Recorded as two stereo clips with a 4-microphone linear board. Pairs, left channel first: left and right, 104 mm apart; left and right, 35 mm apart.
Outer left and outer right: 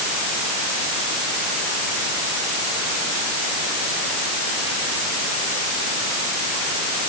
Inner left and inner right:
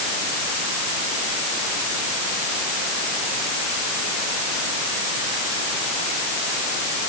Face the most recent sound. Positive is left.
No sound to turn to.